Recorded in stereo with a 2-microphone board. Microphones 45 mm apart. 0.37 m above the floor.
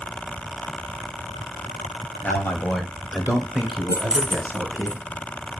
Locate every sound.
2.2 s a man speaking: 50° left (ahead or behind), 1.7 m; by 4.9 s 55° right (ahead or behind), 2.5 m
3.9 s keys jangling: 25° right (ahead or behind), 0.6 m